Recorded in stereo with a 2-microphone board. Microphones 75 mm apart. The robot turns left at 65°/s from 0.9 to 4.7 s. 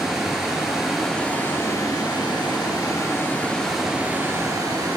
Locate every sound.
0.0 s running water: 175° right, 2.5 m; by 5.0 s 60° right, 2.5 m